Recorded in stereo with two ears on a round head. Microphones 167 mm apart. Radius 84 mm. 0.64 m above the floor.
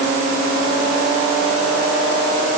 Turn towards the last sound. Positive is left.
No sound to turn to.